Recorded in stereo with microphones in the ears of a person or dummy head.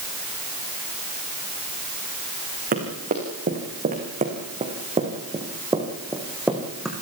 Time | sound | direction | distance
2.7 | running footsteps | 45° right (ahead or behind) | 6 m